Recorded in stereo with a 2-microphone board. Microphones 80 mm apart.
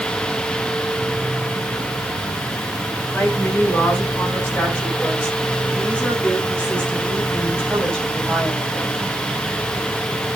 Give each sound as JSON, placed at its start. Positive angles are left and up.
{"t": 3.1, "sound": "a woman speaking", "side_deg": 25, "distance_m": 8.0}